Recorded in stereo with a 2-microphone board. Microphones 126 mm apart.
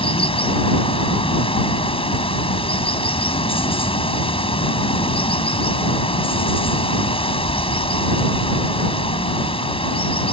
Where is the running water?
50° left (ahead or behind).